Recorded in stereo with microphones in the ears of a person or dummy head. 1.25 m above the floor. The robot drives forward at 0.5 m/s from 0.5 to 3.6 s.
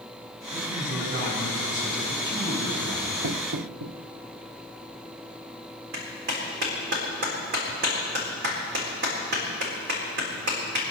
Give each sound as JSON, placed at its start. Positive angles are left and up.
{"t": 0.5, "sound": "a man speaking", "side_deg": -75, "distance_m": 8.0}
{"t": 3.2, "sound": "knocking", "side_deg": -80, "distance_m": 0.8}
{"t": 5.9, "sound": "a clap", "side_deg": -50, "distance_m": 4.0}